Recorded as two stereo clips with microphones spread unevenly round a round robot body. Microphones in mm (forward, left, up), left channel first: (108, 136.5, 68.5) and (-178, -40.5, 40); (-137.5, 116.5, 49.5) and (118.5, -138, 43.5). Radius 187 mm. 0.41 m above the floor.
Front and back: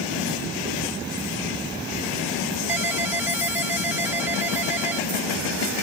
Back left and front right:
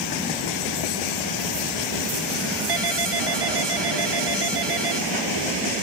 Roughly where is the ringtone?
Ahead right.